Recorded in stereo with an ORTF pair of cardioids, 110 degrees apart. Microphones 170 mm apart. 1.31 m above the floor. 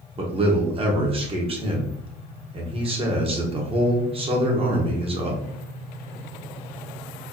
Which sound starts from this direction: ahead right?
A man speaking, at 0.2 s.